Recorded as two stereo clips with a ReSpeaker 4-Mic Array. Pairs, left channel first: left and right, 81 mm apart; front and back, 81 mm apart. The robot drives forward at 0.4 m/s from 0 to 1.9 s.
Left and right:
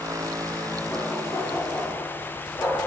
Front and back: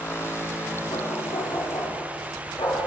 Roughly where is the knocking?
Ahead left.